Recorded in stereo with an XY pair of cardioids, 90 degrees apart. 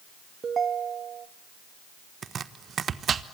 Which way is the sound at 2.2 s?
55° right.